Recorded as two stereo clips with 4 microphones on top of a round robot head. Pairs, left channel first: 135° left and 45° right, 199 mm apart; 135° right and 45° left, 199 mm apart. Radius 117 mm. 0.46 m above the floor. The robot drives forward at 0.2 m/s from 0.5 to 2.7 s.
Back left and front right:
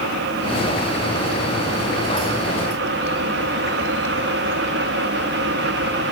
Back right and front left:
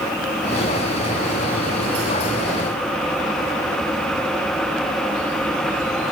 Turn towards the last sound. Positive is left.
No sound to turn to.